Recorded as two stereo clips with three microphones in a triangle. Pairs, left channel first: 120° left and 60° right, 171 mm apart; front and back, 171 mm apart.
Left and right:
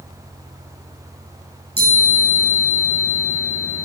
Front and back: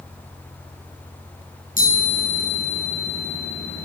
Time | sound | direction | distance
1.8 | a chime | 35° right | 9 m